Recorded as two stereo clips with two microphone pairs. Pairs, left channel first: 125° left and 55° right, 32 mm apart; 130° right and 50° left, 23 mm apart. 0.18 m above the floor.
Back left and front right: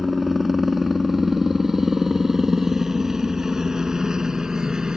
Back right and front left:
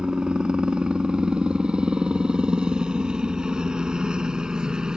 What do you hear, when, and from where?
0.0 s a helicopter: 35° left; by 5.0 s 10° left